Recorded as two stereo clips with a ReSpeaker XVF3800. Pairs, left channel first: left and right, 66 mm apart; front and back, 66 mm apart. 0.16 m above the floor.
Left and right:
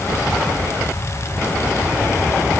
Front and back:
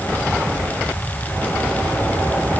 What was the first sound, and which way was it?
Only background noise.